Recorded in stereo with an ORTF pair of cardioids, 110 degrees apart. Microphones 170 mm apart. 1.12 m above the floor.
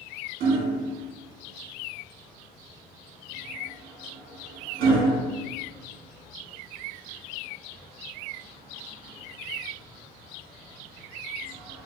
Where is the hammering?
60° right, 1.0 m.